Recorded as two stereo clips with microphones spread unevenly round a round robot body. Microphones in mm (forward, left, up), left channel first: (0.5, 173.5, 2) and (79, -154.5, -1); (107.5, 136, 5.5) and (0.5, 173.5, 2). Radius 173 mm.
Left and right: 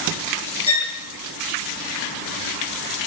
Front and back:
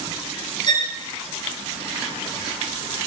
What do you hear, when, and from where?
0.7 s a violin: 30° left, 4.5 m